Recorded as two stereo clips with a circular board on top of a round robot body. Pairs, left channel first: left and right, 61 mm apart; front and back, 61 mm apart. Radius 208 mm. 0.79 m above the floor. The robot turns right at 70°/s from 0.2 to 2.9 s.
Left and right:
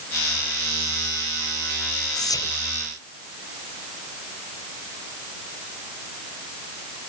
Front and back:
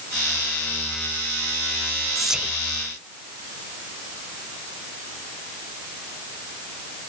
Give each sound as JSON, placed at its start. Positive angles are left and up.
{"t": 2.1, "sound": "whispering", "azimuth_deg": 85}